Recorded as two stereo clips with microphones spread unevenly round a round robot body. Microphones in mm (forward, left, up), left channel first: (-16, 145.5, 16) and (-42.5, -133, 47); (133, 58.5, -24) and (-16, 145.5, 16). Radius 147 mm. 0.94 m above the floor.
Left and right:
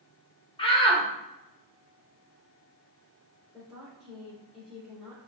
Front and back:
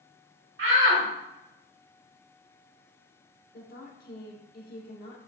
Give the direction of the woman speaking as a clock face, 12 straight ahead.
12 o'clock.